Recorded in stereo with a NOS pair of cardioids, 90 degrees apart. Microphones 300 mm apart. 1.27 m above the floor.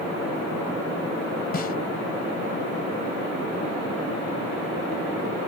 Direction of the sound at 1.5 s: 35° left.